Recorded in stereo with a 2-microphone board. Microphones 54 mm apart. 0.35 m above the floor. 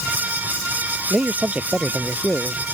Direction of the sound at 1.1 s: 25° right (ahead or behind).